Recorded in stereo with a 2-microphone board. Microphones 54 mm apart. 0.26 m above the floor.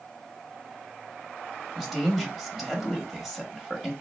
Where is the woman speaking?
Centre (ahead or behind), 1.0 m.